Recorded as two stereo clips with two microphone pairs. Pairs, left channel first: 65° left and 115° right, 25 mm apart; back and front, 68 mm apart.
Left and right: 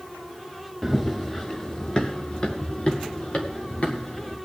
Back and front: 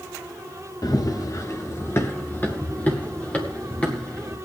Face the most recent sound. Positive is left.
turn(degrees=110)